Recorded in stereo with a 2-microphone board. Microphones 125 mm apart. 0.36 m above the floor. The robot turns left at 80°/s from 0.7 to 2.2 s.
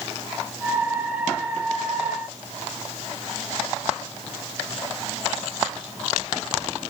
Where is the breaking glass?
I don't hear breaking glass.